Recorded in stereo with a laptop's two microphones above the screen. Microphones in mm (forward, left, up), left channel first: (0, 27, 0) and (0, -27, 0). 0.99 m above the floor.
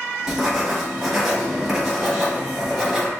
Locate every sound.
0.3 s writing: 5° right (ahead or behind), 1.0 m